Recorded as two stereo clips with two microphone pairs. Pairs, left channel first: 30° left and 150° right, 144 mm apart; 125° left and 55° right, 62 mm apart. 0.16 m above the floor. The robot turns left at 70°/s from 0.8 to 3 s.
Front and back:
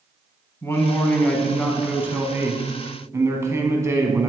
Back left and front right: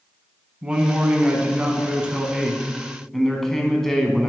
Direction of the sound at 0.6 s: 15° right.